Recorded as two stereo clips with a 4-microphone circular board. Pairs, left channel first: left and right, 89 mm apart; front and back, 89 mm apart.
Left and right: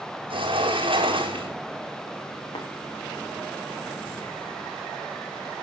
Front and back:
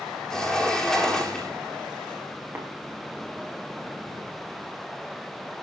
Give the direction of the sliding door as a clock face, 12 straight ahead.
3 o'clock.